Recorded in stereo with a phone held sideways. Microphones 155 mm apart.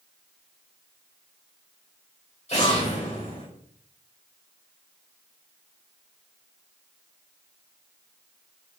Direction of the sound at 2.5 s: 45° left (ahead or behind).